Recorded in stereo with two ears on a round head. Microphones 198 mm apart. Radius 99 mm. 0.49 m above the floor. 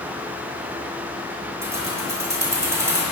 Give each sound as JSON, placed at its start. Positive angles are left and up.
{"t": 1.6, "sound": "keys jangling", "side_deg": -15, "distance_m": 2.5}